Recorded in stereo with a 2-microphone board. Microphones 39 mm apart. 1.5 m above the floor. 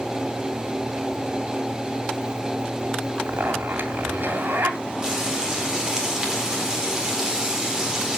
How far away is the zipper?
About 2.5 m.